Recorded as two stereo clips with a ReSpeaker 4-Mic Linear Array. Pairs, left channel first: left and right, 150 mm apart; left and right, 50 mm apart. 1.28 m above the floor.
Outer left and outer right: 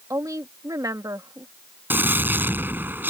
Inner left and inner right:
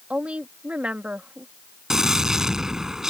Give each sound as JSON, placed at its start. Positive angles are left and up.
{"t": 0.1, "sound": "a woman speaking", "side_deg": -25}
{"t": 1.9, "sound": "a gunshot", "side_deg": -10}